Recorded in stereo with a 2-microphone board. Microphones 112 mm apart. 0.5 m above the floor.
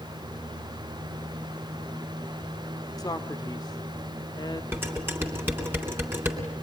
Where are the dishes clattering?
20° right (ahead or behind), 3.5 m.